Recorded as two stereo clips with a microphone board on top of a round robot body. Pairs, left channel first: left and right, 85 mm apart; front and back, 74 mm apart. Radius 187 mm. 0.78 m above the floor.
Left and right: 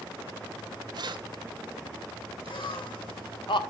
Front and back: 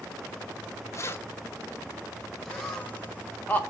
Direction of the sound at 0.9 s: 50° right.